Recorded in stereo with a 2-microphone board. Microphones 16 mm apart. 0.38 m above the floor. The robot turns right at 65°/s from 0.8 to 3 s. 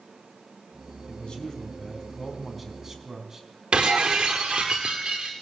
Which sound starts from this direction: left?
A man speaking, at 1.1 s.